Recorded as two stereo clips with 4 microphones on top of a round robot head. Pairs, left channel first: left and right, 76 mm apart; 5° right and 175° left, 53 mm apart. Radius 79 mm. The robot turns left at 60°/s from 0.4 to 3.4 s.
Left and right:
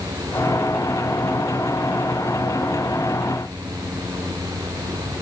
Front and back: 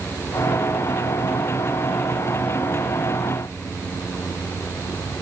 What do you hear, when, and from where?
Only background noise.